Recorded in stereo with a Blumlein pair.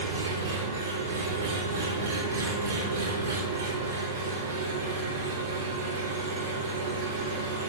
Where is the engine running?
70° right, 4.5 m.